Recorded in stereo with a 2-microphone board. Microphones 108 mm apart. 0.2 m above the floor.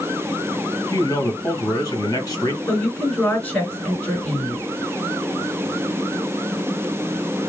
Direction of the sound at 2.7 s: 15° left (ahead or behind).